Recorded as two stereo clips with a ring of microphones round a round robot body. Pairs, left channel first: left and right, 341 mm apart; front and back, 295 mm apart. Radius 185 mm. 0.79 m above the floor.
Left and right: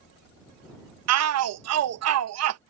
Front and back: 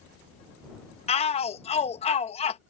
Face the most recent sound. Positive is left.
turn(degrees=-65)